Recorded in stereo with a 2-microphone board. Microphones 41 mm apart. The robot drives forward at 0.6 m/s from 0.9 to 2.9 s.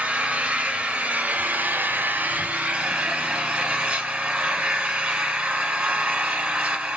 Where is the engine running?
30° right (ahead or behind), 0.8 m.